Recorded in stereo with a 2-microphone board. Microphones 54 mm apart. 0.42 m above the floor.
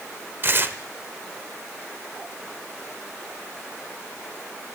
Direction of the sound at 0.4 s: 40° right (ahead or behind).